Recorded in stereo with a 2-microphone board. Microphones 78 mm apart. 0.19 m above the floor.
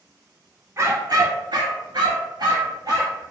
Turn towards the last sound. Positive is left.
turn(degrees=-55)  # may be behind; listen again after turning